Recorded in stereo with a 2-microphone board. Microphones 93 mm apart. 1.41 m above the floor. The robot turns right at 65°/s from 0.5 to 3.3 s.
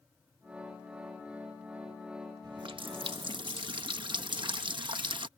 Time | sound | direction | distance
2.4 | a running tap | 125° right | ?